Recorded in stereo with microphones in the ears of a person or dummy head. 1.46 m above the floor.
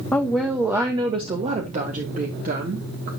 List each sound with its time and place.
0.1 s a woman speaking: 10° left (ahead or behind), 1.0 m; by 3.1 s 50° right (ahead or behind), 2 m